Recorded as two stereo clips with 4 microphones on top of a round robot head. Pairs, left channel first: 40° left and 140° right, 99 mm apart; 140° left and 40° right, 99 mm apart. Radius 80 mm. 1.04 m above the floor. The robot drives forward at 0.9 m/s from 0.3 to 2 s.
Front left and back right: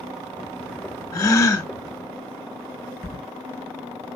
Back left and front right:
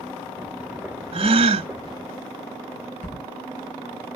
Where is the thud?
135° left, 4.5 m.